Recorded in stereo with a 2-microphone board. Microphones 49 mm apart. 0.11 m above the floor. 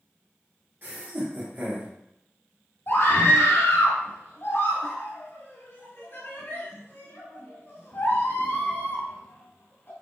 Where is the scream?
45° left (ahead or behind), 1.9 m.